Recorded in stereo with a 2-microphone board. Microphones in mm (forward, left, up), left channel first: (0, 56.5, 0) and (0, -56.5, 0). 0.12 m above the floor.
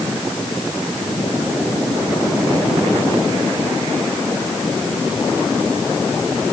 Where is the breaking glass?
I don't hear breaking glass.